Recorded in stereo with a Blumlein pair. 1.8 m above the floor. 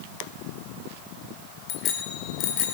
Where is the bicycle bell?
35° left, 4.5 m; by 2.7 s 45° left, 4.5 m.